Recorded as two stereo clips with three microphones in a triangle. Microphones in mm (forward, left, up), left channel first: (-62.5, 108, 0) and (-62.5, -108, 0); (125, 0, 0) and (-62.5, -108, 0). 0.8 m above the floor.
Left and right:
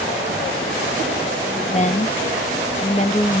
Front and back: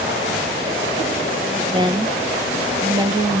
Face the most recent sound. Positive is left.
turn(degrees=145)